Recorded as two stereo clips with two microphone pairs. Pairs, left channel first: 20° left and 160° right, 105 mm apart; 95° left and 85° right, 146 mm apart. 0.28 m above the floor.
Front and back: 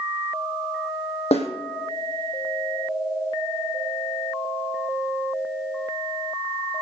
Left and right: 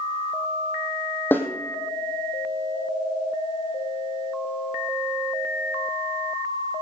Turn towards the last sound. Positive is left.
turn(degrees=20)